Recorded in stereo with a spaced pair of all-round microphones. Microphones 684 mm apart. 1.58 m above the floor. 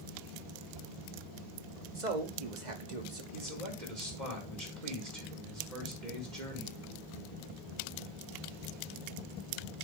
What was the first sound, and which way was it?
A man speaking, 75° right (ahead or behind).